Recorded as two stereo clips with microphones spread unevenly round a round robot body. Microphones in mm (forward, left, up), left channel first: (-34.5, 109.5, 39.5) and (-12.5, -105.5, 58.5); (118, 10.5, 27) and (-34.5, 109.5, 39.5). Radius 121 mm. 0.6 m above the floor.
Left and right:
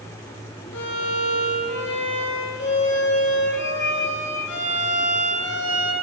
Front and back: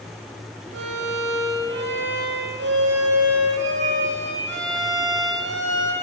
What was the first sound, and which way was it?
A violin, 130° left.